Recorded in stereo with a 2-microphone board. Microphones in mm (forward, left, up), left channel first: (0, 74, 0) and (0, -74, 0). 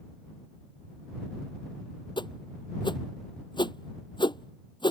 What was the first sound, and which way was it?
A whoosh, 30° left (ahead or behind).